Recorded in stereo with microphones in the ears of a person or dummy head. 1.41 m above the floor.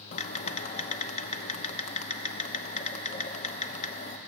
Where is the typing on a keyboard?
45° left (ahead or behind), 0.9 m.